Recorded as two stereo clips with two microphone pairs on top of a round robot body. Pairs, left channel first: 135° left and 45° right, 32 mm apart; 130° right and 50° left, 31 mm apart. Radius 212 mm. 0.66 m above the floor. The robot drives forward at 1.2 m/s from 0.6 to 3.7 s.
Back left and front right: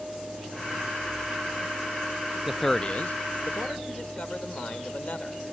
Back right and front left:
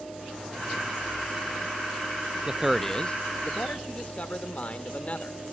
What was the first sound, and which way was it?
A man speaking, 10° right.